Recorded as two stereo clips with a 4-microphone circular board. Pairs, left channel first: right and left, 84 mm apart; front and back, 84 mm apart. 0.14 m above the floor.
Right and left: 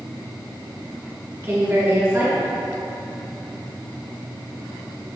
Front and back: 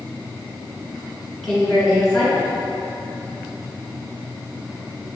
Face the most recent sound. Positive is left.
turn(degrees=85)